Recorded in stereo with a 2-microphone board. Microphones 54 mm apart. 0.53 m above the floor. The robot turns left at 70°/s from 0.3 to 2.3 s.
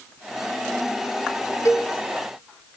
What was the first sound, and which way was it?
A cowbell, 75° left (ahead or behind).